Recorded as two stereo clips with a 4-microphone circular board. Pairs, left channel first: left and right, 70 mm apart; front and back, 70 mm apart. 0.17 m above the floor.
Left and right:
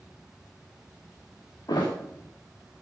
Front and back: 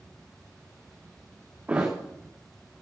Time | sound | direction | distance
1.7 | a thud | 110° left | 4 m